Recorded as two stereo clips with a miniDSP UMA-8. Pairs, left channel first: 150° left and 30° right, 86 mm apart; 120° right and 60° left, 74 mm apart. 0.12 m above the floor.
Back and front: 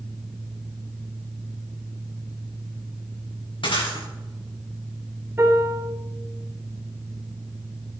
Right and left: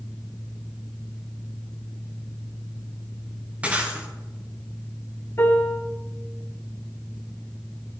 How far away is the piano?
About 2.5 m.